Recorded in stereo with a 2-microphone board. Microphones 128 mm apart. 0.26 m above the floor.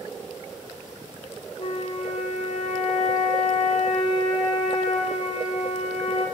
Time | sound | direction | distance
1.6 | a flute | 70° left (ahead or behind) | 1.0 m